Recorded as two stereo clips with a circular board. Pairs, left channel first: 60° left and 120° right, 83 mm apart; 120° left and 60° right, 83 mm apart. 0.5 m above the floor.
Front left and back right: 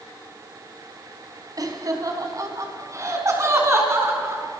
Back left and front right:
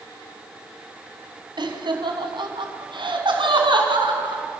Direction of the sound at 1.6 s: 80° right.